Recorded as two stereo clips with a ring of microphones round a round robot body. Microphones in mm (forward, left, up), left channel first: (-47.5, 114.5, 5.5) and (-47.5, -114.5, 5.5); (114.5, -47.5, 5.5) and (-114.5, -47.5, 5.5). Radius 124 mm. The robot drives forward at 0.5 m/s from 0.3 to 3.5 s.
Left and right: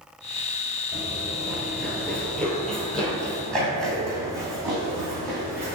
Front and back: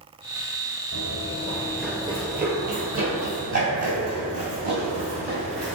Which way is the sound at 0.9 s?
Straight ahead.